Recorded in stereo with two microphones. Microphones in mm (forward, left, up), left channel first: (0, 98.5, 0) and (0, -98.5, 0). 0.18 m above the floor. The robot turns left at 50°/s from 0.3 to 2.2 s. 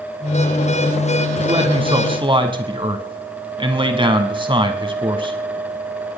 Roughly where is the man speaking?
Right.